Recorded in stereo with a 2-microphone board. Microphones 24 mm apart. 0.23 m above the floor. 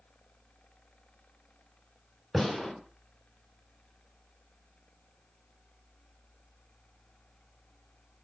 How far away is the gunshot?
About 2.5 m.